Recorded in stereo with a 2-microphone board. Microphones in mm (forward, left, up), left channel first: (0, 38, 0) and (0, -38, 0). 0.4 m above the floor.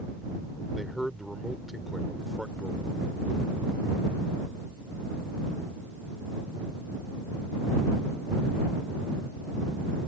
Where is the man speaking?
5° right (ahead or behind).